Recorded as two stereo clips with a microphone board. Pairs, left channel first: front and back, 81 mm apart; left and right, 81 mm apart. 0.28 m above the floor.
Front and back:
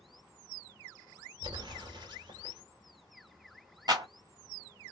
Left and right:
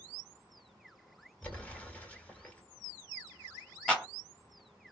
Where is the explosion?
160° left, 1.3 m.